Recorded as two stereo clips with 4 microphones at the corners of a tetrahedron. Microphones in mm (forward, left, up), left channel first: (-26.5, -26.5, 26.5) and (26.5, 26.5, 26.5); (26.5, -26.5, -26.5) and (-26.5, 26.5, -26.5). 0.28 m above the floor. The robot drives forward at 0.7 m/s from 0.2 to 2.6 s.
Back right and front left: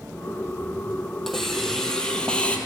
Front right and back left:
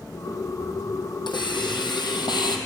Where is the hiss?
45° right, 3 m; by 2.6 s 60° right, 2.5 m.